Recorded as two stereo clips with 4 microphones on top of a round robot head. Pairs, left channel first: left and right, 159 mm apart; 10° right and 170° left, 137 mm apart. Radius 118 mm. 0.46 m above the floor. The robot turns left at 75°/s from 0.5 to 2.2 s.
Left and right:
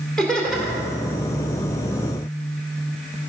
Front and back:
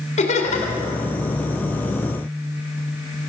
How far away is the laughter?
About 2.5 m.